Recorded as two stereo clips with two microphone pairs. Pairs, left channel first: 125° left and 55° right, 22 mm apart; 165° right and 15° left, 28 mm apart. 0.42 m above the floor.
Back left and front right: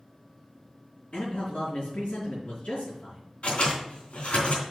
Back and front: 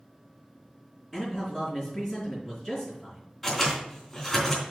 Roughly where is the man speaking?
Left.